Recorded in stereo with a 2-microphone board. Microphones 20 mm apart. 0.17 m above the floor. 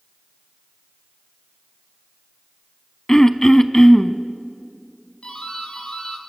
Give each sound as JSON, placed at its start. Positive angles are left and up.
{"t": 3.1, "sound": "throat clearing", "side_deg": 20, "distance_m": 0.7}
{"t": 5.2, "sound": "a doorbell", "side_deg": 55, "distance_m": 4.0}